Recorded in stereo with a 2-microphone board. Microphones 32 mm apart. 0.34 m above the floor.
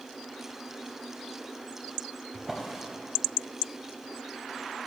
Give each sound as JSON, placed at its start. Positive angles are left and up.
{"t": 2.3, "sound": "a drawer", "side_deg": -15, "distance_m": 0.6}